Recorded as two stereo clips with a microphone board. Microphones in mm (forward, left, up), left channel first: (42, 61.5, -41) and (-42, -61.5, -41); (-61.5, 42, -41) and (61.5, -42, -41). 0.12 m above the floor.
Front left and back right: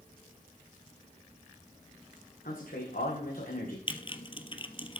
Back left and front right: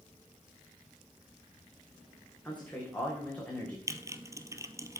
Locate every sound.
2.5 s a man speaking: 65° left, 6.5 m
3.9 s typing on a keyboard: 25° left, 0.9 m